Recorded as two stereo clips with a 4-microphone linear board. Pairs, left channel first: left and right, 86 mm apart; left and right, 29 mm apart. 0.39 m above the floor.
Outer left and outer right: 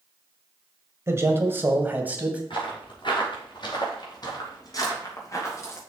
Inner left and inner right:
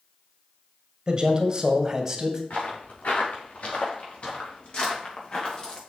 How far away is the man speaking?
About 1.5 m.